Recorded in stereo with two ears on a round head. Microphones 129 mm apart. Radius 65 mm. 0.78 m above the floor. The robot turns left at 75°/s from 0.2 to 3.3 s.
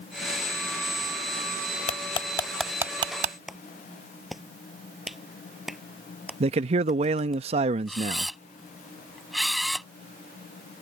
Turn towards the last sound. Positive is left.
turn(degrees=0)  # may be behind; listen again after turning